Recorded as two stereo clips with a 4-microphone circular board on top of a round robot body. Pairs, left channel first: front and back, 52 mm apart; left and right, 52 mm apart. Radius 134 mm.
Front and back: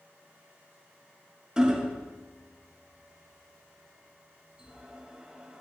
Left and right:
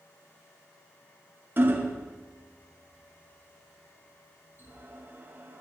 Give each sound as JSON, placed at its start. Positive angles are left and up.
{"t": 1.6, "sound": "hammering", "azimuth_deg": -110, "distance_m": 1.0}